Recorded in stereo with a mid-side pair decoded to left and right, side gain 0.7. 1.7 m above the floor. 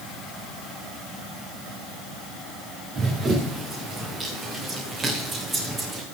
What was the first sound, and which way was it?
Running footsteps, 30° right.